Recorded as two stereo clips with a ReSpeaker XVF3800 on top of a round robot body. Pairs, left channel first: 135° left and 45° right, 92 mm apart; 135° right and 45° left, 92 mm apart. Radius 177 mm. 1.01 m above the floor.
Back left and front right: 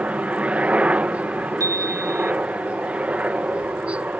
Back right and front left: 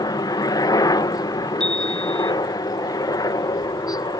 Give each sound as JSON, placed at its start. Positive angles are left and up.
{"t": 0.0, "sound": "a helicopter", "azimuth_deg": -115}
{"t": 1.6, "sound": "a chime", "azimuth_deg": -60}